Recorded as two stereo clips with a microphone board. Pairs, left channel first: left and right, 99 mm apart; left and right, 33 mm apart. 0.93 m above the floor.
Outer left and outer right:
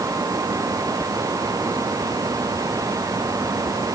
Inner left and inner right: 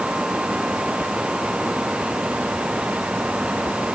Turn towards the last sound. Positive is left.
No sound to turn to.